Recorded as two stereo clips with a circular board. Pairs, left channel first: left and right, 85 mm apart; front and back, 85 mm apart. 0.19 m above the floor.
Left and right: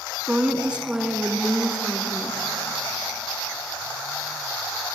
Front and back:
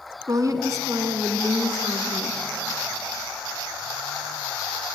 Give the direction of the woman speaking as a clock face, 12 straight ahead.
5 o'clock.